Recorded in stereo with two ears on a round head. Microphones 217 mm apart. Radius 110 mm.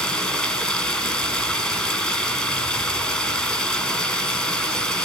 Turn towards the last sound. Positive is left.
turn(degrees=0)  # may be behind; listen again after turning